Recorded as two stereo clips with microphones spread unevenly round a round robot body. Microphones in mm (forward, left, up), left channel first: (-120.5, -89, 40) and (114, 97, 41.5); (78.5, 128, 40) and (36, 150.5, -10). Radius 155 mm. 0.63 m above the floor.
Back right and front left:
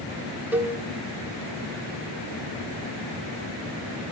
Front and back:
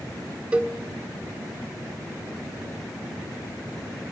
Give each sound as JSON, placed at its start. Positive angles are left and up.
{"t": 0.5, "sound": "a cowbell", "azimuth_deg": 125, "distance_m": 1.2}